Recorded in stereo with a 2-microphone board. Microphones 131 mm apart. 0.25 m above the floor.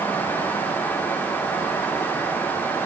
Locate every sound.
Only background noise.